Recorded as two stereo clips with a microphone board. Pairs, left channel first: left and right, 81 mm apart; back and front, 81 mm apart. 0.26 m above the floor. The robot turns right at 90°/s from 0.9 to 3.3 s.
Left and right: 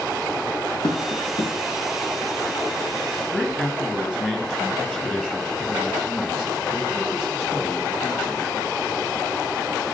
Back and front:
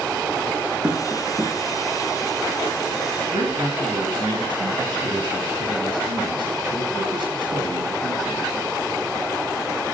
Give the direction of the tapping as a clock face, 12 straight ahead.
9 o'clock.